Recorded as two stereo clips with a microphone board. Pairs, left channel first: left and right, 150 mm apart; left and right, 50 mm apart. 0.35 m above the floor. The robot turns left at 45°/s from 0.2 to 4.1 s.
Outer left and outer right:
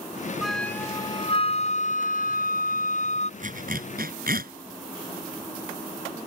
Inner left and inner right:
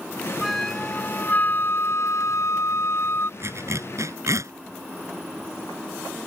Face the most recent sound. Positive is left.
turn(degrees=-80)